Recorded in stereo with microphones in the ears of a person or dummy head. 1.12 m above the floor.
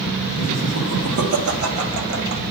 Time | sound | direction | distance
0.4 | laughter | 50° right (ahead or behind) | 2 m